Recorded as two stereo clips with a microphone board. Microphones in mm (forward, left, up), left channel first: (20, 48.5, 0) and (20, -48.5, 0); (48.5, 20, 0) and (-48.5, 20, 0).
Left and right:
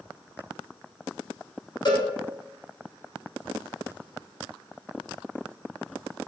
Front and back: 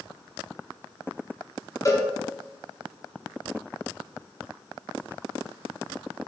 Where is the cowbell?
50° left, 1.1 m.